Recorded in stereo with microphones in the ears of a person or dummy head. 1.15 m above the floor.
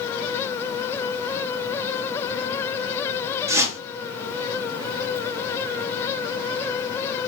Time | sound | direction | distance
3.5 | a whoosh | 20° right (ahead or behind) | 0.7 m